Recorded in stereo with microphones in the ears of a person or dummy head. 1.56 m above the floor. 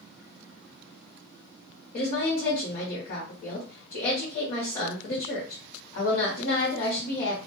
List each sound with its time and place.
1.9 s a woman speaking: 45° left (ahead or behind), 1.0 m